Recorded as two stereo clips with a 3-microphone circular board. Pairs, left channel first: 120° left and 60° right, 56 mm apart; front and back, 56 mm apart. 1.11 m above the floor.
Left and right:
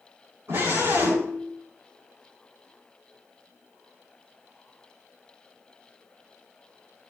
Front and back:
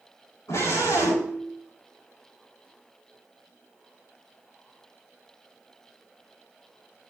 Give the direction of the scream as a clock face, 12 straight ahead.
1 o'clock.